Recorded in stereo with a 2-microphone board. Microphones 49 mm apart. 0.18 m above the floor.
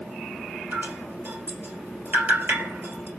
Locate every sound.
0.7 s dripping: 45° right (ahead or behind), 2 m